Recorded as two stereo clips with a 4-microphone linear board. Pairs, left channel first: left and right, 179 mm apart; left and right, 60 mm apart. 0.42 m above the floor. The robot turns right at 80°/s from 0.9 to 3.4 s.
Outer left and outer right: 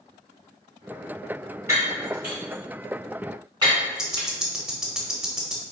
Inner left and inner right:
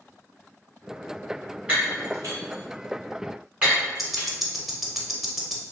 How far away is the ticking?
About 0.7 m.